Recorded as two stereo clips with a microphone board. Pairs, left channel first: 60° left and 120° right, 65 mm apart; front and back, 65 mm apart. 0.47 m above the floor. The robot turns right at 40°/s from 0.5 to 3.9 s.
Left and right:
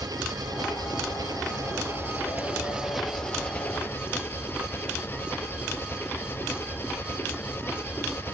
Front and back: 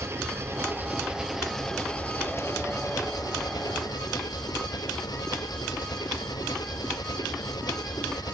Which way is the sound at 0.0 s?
130° right.